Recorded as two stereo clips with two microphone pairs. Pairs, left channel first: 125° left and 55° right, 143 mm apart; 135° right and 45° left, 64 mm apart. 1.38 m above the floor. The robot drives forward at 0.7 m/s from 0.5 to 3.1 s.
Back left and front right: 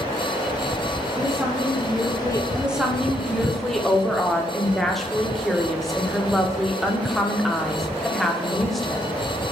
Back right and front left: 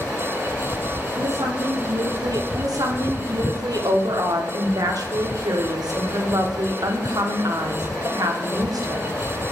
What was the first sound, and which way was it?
A woman speaking, 25° left.